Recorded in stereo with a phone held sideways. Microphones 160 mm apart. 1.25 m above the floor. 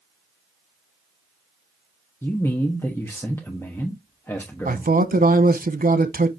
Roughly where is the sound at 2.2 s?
Centre.